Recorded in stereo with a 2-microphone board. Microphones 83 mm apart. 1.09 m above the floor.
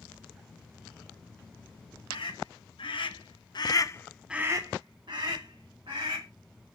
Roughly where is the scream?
Left.